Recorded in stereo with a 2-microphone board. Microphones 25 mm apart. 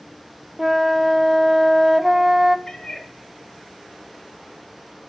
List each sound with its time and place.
0.6 s a flute: 10° right (ahead or behind), 0.5 m
2.7 s a cat meowing: 25° left (ahead or behind), 0.7 m